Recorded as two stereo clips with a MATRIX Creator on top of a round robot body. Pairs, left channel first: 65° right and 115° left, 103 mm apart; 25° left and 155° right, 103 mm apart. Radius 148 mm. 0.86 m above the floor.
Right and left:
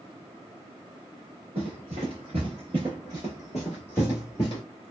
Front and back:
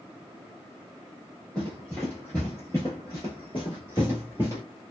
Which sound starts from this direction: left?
Running footsteps, at 1.6 s.